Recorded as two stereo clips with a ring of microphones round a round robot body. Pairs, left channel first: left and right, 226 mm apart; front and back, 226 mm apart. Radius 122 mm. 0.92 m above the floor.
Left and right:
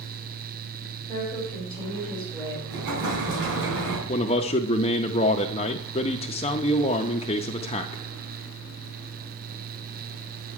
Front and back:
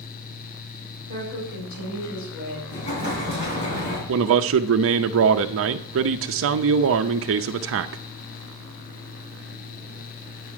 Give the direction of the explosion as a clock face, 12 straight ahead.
2 o'clock.